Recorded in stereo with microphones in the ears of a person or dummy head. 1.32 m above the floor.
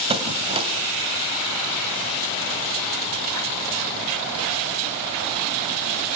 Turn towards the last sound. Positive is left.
turn(degrees=-30)  # may be behind; listen again after turning